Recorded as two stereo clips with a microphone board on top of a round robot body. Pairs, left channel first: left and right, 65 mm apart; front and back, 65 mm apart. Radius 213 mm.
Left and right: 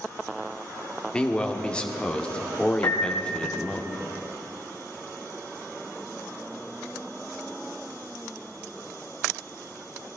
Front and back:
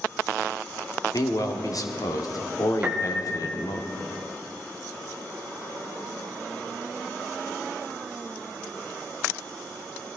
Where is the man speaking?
15° left, 1.5 m.